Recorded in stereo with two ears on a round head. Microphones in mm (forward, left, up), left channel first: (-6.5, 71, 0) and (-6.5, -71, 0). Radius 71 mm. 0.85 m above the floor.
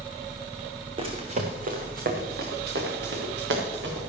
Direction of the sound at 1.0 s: 35° right (ahead or behind).